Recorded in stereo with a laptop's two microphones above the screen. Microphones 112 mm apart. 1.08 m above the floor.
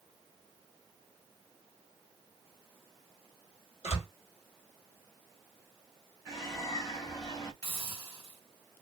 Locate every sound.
3.8 s a door slam: 80° left, 2 m
6.3 s a bird: 35° left (ahead or behind), 1.7 m
7.6 s a hiss: 35° left (ahead or behind), 1.7 m